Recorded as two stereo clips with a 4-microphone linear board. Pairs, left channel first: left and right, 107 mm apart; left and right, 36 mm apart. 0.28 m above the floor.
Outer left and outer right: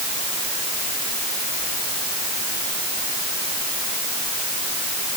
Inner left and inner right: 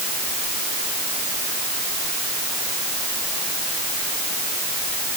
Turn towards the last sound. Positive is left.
No sound to turn to.